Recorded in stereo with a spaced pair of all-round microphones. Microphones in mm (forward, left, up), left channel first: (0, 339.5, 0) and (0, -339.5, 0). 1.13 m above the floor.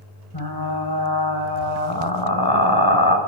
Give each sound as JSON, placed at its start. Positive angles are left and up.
{"t": 0.3, "sound": "frying", "side_deg": 35, "distance_m": 3.5}